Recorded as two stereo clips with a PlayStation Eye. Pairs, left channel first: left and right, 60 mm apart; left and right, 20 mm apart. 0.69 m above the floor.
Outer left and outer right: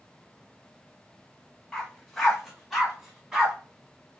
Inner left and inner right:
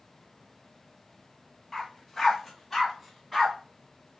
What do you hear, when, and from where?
1.7 s a dog barking: 10° left (ahead or behind), 1.2 m; by 3.5 s 10° right (ahead or behind), 1.9 m